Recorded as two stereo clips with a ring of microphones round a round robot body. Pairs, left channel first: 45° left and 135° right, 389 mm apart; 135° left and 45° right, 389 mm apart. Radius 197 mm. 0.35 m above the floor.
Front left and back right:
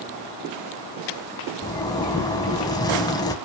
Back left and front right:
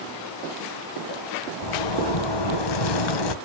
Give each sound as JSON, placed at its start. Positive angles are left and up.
{"t": 1.6, "sound": "a zipper", "azimuth_deg": 125, "distance_m": 1.4}